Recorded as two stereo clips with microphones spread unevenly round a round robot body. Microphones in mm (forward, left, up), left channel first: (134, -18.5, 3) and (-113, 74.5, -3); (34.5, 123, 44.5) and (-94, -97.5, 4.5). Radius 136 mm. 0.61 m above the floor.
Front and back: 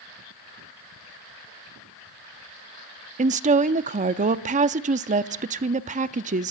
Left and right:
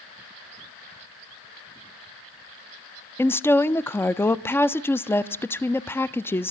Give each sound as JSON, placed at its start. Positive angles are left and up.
{"t": 3.2, "sound": "a woman speaking", "azimuth_deg": 150, "distance_m": 0.5}